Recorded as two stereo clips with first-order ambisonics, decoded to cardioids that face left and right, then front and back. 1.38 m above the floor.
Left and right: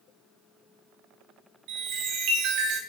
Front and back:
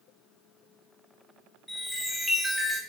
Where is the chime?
85° right, 1.0 m.